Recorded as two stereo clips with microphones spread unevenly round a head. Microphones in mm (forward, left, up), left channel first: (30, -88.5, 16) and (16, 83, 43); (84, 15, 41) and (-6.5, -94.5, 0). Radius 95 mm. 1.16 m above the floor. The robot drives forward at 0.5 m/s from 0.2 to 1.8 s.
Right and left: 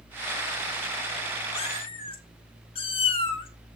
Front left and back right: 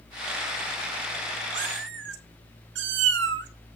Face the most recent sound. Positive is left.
turn(degrees=-150)